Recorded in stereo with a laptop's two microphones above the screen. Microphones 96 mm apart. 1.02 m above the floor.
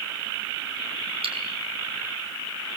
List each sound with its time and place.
1.2 s cutlery clinking: 85° right, 5.5 m